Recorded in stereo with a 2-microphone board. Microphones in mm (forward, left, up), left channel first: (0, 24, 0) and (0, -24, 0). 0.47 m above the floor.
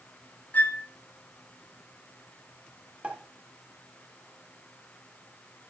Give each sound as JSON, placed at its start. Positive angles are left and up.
{"t": 0.5, "sound": "a flute", "side_deg": 35, "distance_m": 0.6}
{"t": 3.0, "sound": "a pop", "side_deg": -25, "distance_m": 1.3}